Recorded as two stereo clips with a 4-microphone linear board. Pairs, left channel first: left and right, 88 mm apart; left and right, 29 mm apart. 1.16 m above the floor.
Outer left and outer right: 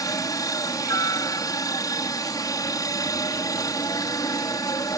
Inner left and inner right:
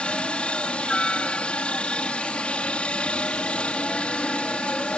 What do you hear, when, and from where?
0.0 s a helicopter: 45° left (ahead or behind)